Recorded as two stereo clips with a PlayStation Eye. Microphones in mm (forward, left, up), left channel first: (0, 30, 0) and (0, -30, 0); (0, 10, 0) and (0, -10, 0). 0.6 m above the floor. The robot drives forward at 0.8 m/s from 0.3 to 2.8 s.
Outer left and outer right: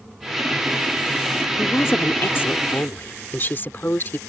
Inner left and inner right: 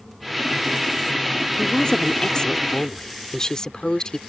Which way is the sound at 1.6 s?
45° left (ahead or behind).